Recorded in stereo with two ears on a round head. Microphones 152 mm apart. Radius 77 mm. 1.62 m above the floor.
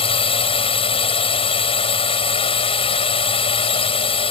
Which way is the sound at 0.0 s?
35° left (ahead or behind).